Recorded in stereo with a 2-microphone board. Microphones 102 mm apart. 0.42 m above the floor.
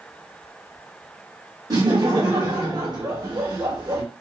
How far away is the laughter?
About 1.4 m.